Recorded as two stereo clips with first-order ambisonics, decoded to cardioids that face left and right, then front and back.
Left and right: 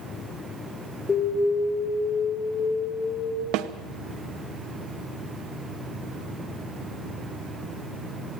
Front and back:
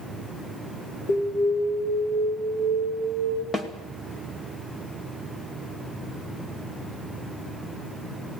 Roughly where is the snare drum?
Right.